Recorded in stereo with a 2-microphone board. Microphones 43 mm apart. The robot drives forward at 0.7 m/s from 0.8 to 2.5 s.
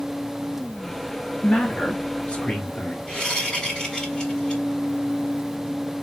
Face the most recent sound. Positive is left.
turn(degrees=10)  # may be behind; listen again after turning